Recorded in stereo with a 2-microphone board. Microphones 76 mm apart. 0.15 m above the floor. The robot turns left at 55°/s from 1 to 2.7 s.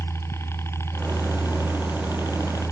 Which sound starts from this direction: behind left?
A helicopter, at 0.0 s.